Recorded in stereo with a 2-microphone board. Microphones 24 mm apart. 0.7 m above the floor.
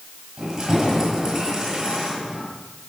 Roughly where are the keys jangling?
Right.